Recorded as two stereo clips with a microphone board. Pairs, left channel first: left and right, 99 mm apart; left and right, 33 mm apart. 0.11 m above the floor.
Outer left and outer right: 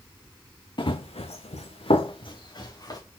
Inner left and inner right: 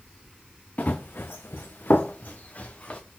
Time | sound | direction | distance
0.8 | running footsteps | 50° left (ahead or behind) | 0.6 m